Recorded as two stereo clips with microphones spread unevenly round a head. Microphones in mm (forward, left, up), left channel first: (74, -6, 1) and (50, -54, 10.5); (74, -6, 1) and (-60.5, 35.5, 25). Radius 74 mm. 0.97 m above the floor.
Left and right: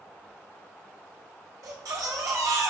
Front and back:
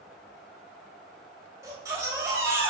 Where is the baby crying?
130° right, 3 m.